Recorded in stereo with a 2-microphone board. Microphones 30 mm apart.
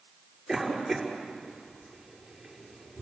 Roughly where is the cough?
Centre.